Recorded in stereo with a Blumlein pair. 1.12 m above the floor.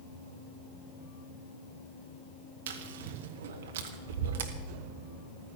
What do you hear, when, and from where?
2.7 s chewing: 60° right, 1.6 m